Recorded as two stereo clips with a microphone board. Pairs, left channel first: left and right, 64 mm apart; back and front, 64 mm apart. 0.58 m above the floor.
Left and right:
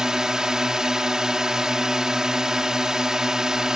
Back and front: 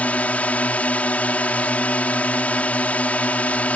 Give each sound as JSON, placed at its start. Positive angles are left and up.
{"t": 0.0, "sound": "a drone", "azimuth_deg": -155}